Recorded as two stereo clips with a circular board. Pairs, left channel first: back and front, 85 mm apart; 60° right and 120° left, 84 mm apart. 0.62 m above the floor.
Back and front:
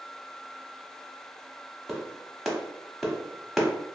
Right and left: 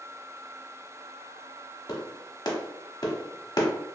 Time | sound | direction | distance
1.9 | a clap | 85° right | 0.9 m